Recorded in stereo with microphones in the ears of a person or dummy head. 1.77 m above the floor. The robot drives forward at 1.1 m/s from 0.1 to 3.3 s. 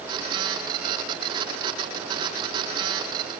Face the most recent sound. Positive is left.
No sound to turn to.